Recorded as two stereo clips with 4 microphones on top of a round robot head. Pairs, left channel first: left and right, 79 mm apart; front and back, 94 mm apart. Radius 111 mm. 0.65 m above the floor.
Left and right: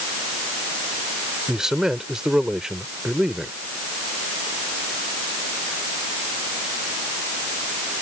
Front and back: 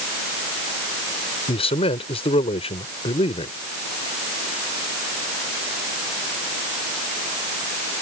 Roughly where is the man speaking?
Ahead.